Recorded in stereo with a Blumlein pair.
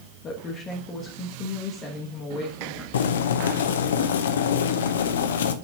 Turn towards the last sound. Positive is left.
turn(degrees=60)